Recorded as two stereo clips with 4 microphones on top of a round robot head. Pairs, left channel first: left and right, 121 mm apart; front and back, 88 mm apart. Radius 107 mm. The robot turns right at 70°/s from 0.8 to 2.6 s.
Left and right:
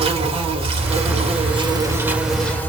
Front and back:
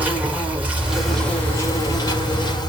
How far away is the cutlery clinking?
I don't hear cutlery clinking.